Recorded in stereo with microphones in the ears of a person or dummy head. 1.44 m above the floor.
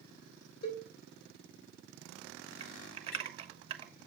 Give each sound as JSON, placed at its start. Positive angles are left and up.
{"t": 0.6, "sound": "a cowbell", "side_deg": 55, "distance_m": 3.5}
{"t": 2.6, "sound": "typing on a keyboard", "side_deg": -35, "distance_m": 1.2}